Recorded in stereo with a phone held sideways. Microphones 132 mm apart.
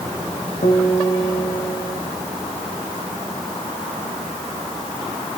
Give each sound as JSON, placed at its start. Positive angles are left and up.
{"t": 0.6, "sound": "a guitar", "side_deg": 80, "distance_m": 4.5}